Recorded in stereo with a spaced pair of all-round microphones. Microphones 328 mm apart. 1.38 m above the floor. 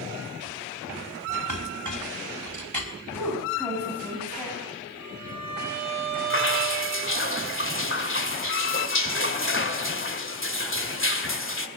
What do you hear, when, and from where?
1.5 s a clink: 65° right (ahead or behind), 4.5 m
3.1 s a woman speaking: 5° left (ahead or behind), 8.5 m
5.0 s a violin: 70° left (ahead or behind), 8 m
6.3 s dripping: 40° left (ahead or behind), 2.0 m